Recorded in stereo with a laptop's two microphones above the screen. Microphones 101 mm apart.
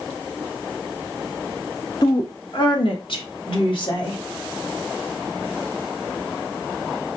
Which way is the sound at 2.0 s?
45° left (ahead or behind).